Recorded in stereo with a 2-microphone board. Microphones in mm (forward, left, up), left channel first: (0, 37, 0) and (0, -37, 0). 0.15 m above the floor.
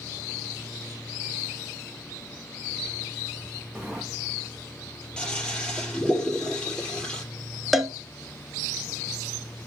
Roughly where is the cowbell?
Centre.